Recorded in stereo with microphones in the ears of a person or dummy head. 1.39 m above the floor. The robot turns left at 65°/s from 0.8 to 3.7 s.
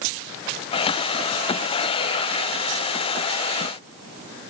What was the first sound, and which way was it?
Only background noise.